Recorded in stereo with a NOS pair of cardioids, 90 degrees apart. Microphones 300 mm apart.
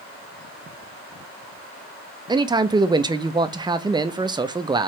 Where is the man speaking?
15° right, 0.6 m.